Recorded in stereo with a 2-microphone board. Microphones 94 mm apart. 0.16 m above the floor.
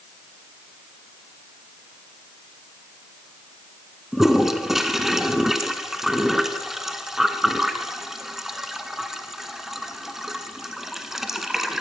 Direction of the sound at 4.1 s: 5° right (ahead or behind).